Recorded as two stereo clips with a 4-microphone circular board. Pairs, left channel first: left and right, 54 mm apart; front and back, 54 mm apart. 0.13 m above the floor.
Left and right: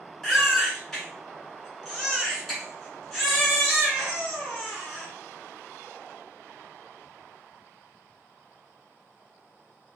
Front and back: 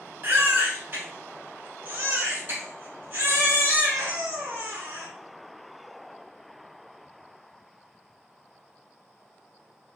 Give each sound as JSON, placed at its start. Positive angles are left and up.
{"t": 0.2, "sound": "a baby crying", "azimuth_deg": 165, "distance_m": 1.4}